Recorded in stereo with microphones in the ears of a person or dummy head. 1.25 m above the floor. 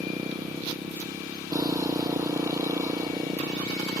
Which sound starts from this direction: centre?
A motorcycle, at 0.0 s.